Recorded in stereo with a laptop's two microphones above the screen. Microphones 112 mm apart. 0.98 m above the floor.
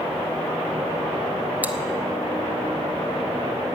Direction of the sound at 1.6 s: 15° right (ahead or behind).